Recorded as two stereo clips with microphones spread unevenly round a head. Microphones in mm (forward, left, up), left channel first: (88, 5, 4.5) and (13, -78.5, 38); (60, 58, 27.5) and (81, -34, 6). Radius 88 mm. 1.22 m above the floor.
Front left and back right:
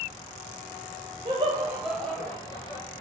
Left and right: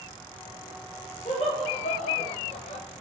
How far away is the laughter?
About 1.0 m.